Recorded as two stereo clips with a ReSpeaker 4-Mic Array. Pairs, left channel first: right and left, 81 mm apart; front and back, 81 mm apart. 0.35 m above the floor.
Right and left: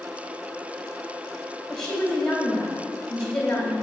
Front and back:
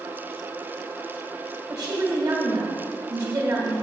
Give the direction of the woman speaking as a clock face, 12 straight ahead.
6 o'clock.